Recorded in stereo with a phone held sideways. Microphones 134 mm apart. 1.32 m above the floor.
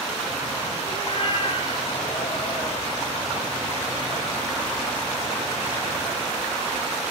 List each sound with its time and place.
0.9 s a cat meowing: 45° left (ahead or behind), 4.5 m